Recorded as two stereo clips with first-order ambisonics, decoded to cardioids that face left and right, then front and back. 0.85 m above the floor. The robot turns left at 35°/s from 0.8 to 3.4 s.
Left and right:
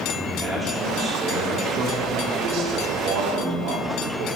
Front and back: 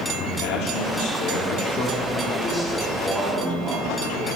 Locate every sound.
0.2 s a man speaking: 10° right, 2 m; by 4.3 s 100° right, 2 m